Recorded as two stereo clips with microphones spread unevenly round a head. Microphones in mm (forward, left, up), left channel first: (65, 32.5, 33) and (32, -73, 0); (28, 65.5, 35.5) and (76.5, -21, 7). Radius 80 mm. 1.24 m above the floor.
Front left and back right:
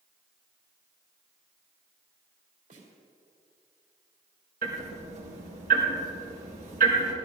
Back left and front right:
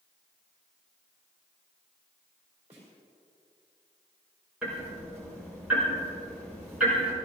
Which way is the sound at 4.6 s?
150° right.